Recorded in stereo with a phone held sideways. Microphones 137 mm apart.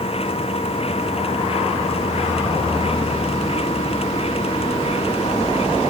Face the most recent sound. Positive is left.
turn(degrees=45)  # may be behind; listen again after turning